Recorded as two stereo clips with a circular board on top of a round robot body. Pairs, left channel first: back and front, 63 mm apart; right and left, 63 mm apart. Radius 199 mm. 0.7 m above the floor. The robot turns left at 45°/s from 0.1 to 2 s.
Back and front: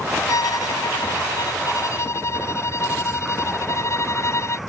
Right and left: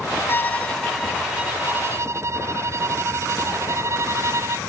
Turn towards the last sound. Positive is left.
turn(degrees=135)